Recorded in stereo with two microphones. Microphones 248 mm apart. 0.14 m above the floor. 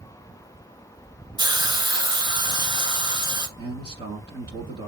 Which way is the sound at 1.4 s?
15° right (ahead or behind).